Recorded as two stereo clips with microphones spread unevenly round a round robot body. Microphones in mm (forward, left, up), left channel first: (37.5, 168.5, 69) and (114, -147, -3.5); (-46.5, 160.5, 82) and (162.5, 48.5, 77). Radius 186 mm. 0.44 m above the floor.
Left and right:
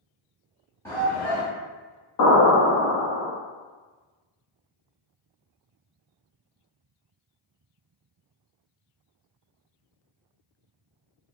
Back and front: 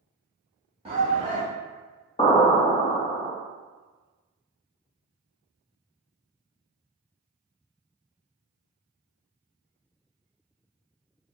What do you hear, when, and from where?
0.8 s a shout: straight ahead, 1.1 m
2.2 s an explosion: 90° left, 1.0 m